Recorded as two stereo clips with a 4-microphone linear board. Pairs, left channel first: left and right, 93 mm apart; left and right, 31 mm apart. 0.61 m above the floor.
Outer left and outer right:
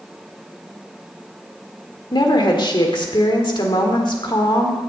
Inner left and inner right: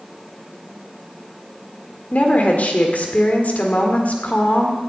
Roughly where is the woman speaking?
Left.